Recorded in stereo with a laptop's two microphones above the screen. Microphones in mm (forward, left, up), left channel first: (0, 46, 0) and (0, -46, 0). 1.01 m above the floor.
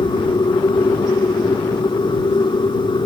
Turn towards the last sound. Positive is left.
turn(degrees=55)  # may be behind; listen again after turning